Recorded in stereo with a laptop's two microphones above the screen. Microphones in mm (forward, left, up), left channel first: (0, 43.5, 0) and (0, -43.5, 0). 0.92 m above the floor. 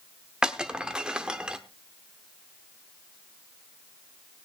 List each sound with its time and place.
0.4 s breaking glass: 10° right (ahead or behind), 0.9 m